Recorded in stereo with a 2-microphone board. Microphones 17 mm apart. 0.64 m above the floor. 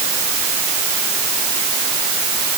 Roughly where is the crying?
I don't hear crying.